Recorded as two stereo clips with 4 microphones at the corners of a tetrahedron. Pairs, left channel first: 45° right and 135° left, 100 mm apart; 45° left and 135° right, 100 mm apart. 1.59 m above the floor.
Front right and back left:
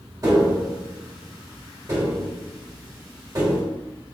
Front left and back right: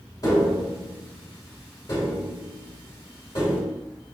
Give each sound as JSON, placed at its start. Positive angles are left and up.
{"t": 0.2, "sound": "tapping", "azimuth_deg": 85, "distance_m": 2.5}